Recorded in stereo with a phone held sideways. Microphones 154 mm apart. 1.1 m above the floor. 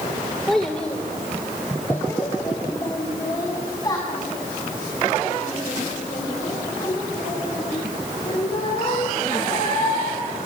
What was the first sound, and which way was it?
A child speaking, centre (ahead or behind).